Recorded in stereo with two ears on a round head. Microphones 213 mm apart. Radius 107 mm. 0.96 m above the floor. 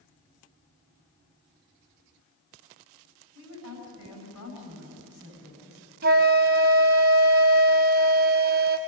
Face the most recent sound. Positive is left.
turn(degrees=-40)  # may be behind; listen again after turning